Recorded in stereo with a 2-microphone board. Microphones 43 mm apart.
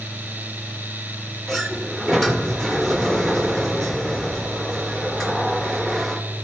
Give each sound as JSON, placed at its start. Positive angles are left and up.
{"t": 1.5, "sound": "a sliding door", "side_deg": 5, "distance_m": 1.2}